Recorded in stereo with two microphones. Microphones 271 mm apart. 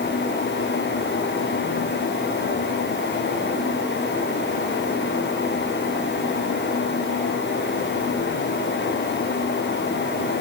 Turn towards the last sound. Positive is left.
No sound to turn to.